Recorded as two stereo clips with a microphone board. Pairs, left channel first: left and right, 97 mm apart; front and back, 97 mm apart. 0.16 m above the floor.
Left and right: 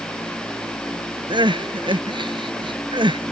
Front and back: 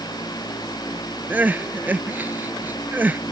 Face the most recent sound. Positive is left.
turn(degrees=-110)